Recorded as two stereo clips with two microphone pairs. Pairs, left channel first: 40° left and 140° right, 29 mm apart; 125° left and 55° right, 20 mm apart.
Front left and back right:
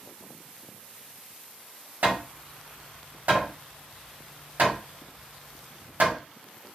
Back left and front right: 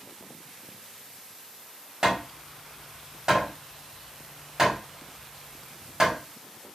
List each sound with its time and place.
2.0 s hammering: 115° right, 1.0 m